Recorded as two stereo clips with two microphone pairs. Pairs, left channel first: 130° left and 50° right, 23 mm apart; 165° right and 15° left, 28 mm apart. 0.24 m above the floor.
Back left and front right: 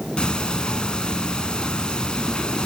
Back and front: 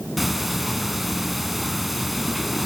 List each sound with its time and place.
0.2 s ticking: 100° left, 0.9 m